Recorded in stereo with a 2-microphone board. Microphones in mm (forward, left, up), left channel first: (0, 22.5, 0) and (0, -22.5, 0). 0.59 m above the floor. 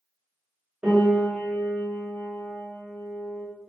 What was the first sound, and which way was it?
A piano, 20° right (ahead or behind).